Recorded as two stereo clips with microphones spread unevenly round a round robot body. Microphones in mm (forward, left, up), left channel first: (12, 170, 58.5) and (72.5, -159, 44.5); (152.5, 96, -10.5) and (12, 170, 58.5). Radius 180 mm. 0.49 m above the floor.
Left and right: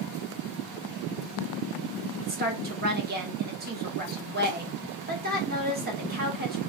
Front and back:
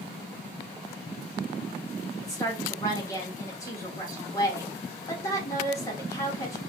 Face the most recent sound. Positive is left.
turn(degrees=-40)